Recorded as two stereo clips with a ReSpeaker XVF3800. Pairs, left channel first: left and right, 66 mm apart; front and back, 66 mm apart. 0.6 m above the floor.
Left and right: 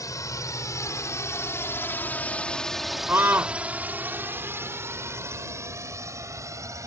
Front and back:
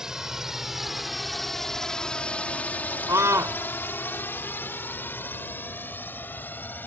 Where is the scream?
140° right.